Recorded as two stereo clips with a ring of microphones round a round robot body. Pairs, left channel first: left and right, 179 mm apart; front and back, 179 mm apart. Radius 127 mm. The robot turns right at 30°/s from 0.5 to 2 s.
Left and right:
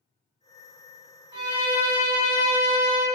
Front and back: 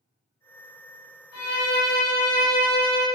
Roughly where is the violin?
Ahead right.